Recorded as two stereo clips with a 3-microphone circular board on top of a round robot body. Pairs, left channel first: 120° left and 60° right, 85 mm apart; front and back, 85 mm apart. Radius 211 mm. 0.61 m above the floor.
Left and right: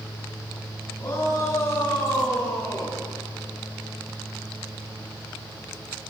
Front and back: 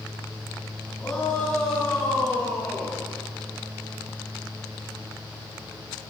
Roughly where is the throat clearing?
No throat clearing in this recording.